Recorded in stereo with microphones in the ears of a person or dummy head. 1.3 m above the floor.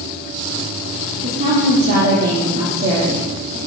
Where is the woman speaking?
40° right (ahead or behind), 3 m.